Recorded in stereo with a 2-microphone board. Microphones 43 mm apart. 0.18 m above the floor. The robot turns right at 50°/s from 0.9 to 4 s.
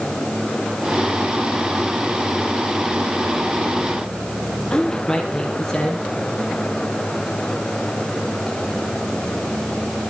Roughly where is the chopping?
No chopping in this recording.